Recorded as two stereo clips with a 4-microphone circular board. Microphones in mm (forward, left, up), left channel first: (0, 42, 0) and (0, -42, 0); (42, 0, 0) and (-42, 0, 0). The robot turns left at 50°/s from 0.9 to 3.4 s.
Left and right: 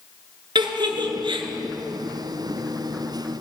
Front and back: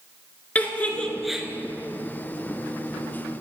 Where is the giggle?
70° right, 0.8 m; by 1.5 s 100° right, 0.8 m.